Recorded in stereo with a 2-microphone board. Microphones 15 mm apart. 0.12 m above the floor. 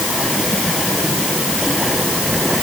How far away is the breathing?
No breathing in this recording.